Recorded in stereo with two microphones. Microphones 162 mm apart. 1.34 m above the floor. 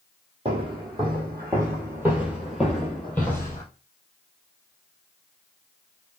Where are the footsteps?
35° right (ahead or behind), 1.7 m; by 3.6 s 20° left (ahead or behind), 1.4 m.